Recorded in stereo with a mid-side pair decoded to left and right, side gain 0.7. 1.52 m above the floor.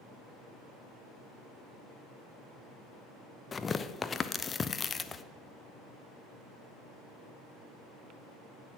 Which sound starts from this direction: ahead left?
Tearing paper, at 3.5 s.